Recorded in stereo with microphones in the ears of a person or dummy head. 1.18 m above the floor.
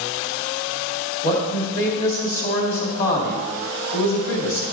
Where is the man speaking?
50° left (ahead or behind), 2.5 m.